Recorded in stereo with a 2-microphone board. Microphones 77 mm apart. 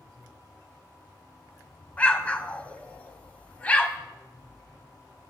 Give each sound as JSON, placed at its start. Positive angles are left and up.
{"t": 2.0, "sound": "an explosion", "side_deg": 20, "distance_m": 0.7}